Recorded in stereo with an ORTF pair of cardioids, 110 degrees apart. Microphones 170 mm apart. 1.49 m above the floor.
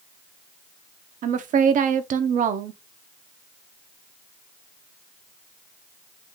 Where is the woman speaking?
50° right, 0.7 m.